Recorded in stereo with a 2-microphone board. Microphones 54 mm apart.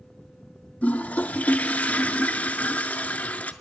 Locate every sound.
0.8 s a toilet flushing: 30° left (ahead or behind), 0.5 m